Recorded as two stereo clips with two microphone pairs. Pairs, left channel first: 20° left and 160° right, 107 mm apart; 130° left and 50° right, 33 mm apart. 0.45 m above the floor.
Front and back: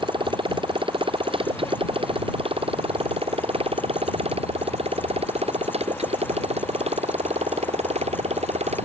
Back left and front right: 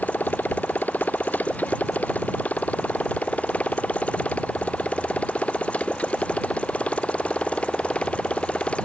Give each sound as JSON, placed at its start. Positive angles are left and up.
{"t": 0.0, "sound": "a motorcycle", "azimuth_deg": 160}